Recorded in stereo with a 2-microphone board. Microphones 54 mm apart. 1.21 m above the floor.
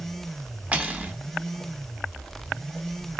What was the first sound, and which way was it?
Cutlery clinking, 25° right (ahead or behind).